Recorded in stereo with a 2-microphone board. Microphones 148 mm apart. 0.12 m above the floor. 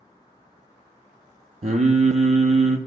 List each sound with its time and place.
1.6 s singing: 55° right (ahead or behind), 0.5 m